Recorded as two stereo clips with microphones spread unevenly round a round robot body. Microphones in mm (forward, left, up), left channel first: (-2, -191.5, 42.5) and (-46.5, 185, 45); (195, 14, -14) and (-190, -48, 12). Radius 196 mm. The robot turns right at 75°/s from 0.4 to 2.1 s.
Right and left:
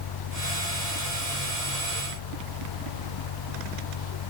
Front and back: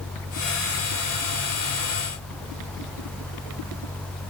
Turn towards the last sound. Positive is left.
No sound to turn to.